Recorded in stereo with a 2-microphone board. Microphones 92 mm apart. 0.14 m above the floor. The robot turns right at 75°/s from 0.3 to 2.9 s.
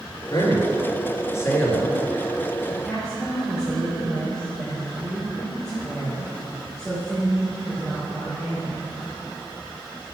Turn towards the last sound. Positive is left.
turn(degrees=5)  # may be behind; listen again after turning